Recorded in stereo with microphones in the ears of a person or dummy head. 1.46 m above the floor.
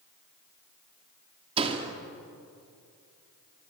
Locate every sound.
1.6 s a door slam: 30° right (ahead or behind), 2.5 m